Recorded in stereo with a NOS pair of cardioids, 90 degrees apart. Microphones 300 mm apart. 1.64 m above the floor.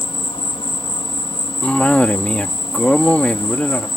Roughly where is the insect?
Ahead.